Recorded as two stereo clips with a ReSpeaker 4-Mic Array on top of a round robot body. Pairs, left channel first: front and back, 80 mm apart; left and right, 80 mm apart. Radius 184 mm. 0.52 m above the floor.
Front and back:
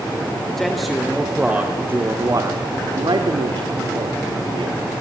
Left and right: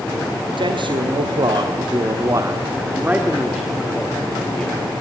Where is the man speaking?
85° right, 2 m; by 4.8 s 170° left, 2.5 m.